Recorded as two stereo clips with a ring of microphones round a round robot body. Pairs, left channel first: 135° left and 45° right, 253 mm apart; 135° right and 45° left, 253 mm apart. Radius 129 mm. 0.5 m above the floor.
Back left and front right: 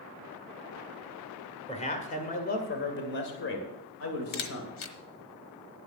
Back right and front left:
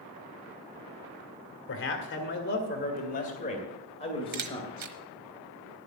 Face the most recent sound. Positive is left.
turn(degrees=95)